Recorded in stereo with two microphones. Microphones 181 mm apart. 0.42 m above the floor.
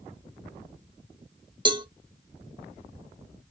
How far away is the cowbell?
About 0.5 m.